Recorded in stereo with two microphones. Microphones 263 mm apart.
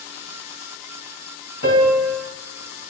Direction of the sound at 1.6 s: 60° left (ahead or behind).